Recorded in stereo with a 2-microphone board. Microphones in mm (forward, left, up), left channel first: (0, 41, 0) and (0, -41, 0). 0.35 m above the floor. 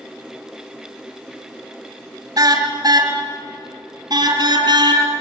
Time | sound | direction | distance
2.4 | a car horn | 50° right (ahead or behind) | 3.5 m